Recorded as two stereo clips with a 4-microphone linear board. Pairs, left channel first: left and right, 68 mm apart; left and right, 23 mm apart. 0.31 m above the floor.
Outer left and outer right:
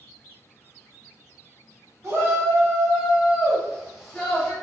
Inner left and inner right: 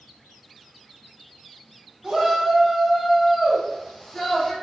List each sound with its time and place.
2.0 s a shout: 40° right (ahead or behind), 1.2 m; by 4.5 s 10° left (ahead or behind), 1.3 m